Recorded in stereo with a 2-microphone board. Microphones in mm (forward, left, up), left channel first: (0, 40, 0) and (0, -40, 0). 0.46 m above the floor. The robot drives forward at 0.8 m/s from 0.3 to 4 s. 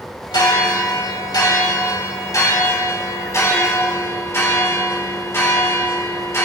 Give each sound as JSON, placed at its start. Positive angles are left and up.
{"t": 0.3, "sound": "a bell", "side_deg": 65, "distance_m": 2.5}